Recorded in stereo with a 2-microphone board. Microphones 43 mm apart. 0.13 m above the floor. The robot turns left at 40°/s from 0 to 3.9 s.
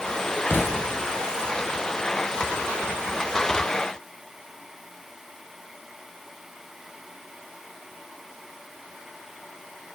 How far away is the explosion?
About 0.6 m.